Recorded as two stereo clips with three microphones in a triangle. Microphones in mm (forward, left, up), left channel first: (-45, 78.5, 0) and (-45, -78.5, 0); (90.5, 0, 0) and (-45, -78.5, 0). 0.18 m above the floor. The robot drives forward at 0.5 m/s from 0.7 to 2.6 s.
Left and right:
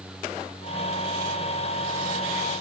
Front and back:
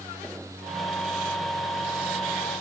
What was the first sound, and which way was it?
Only background noise.